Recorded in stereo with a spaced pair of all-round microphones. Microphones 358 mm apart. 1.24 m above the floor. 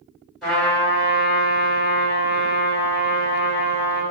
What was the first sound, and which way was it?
A trumpet, centre (ahead or behind).